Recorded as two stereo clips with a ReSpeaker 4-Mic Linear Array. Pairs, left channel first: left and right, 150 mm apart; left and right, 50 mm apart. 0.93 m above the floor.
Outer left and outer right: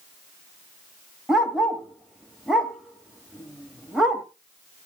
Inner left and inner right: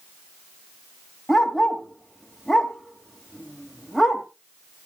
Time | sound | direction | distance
1.3 | a dog barking | 5° right (ahead or behind) | 1.7 m